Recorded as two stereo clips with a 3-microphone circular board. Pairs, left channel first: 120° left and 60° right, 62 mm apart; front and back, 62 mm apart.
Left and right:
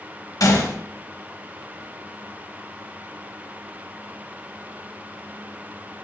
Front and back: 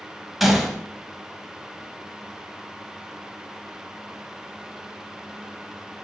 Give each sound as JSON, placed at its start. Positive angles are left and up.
{"t": 0.4, "sound": "a gunshot", "azimuth_deg": 90, "distance_m": 0.5}